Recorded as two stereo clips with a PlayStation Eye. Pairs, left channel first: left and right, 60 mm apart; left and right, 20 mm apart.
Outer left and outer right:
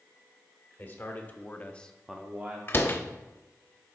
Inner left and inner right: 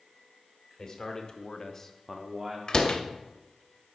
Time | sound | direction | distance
0.8 | a man speaking | 30° left (ahead or behind) | 1.5 m
2.7 | a door slam | 35° left (ahead or behind) | 0.6 m